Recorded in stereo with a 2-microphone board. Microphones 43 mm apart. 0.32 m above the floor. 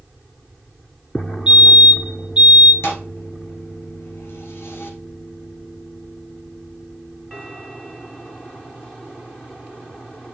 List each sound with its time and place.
1.5 s a fire alarm: 20° right (ahead or behind), 2 m
2.8 s a thud: 75° left (ahead or behind), 2.0 m